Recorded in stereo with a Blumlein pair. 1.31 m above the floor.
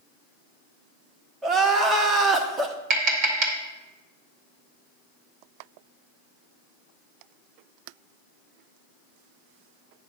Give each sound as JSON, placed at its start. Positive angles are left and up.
{"t": 1.4, "sound": "crying", "azimuth_deg": -20, "distance_m": 1.2}
{"t": 2.9, "sound": "tapping", "azimuth_deg": -35, "distance_m": 2.0}